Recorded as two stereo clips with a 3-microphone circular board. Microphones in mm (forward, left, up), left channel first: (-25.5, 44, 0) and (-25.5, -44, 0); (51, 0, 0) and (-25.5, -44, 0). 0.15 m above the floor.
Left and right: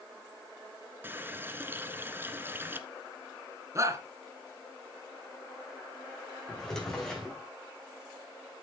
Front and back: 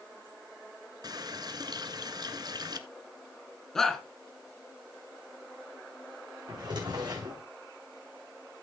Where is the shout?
55° right, 2 m.